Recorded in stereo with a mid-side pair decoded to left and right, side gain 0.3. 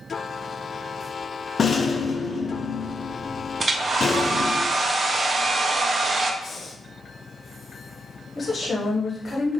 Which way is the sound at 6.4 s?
50° left.